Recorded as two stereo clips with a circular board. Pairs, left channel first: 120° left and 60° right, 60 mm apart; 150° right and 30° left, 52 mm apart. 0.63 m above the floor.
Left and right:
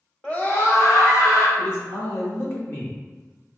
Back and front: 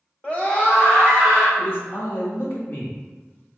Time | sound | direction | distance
0.2 | a scream | straight behind | 0.8 m
1.6 | a man speaking | 170° left | 1.1 m